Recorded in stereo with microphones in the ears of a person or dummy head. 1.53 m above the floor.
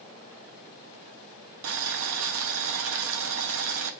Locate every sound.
1.6 s boiling: 80° right, 0.9 m